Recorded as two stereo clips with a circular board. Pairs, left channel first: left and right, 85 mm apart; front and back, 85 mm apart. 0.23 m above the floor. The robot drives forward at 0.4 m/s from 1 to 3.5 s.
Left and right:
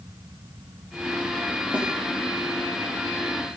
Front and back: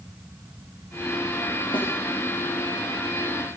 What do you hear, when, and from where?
1.7 s a snare drum: 15° right, 7 m